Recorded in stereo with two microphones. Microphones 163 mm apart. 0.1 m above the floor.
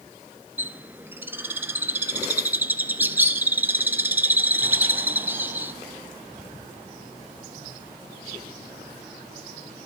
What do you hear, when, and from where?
0.6 s a bird: 10° right (ahead or behind), 0.5 m